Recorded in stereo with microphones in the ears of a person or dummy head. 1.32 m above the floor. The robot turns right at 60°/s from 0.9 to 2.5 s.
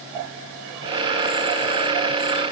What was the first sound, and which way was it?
Only background noise.